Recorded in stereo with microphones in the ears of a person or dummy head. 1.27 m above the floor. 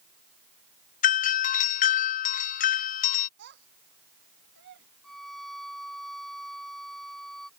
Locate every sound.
1.0 s a doorbell: 45° left (ahead or behind)
3.4 s a child speaking: 65° right (ahead or behind)
5.0 s a violin: centre (ahead or behind)